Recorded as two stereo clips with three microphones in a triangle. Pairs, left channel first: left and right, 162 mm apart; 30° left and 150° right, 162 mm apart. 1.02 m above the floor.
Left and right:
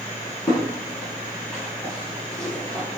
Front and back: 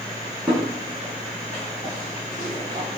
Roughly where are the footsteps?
Behind left.